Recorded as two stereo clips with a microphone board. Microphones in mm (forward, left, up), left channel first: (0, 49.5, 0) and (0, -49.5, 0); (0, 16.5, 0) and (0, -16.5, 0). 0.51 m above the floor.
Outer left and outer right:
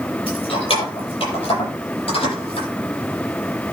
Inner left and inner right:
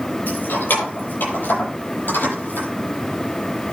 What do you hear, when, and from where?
0.3 s keys jangling: 60° left (ahead or behind), 9.5 m; by 2.7 s 70° left (ahead or behind), 12 m